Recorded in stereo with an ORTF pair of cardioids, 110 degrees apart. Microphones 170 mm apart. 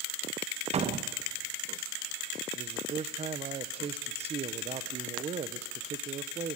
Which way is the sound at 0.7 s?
40° right.